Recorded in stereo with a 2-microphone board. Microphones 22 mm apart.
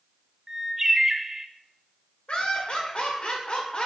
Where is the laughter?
50° left (ahead or behind), 1.9 m.